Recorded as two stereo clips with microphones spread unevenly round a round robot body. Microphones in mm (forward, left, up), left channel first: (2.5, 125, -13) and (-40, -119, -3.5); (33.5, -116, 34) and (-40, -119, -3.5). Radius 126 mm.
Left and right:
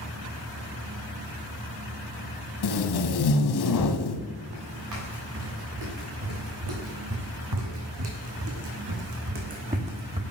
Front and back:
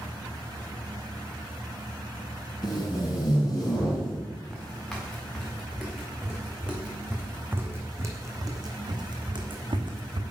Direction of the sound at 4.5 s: 75° right.